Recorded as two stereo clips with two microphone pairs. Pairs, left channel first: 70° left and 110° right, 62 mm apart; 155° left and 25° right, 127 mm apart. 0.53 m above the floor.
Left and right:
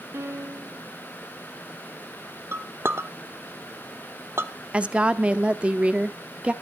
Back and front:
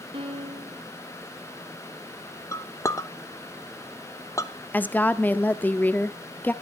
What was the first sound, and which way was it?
A piano, 65° right.